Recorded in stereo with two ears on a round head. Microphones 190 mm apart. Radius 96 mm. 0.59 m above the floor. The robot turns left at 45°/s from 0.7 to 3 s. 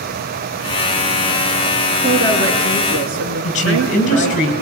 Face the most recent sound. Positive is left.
turn(degrees=35)  # may be behind; listen again after turning